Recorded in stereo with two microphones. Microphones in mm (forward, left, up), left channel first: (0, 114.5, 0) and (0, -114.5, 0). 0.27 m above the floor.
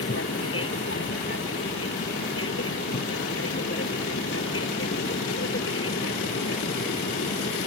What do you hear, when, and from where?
0.0 s an aircraft: 70° left (ahead or behind)